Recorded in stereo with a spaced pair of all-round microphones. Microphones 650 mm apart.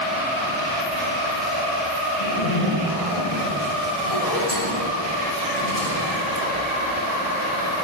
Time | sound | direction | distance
2.2 | a zipper | 70° left (ahead or behind) | 6.5 m